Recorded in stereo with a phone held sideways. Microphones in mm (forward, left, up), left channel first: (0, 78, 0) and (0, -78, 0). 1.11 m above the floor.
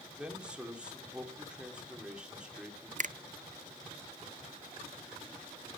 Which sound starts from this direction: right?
A finger snap, at 3.0 s.